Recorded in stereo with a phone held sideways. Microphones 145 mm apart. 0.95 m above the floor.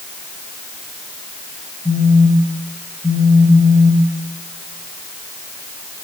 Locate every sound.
1.9 s a phone buzzing: 25° left (ahead or behind), 4.5 m